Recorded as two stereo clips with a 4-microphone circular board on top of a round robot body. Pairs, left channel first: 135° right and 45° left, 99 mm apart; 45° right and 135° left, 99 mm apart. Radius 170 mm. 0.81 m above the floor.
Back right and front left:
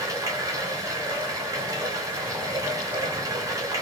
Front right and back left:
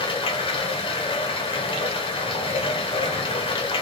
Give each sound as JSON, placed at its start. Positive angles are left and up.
{"t": 0.0, "sound": "running water", "azimuth_deg": -15, "distance_m": 1.4}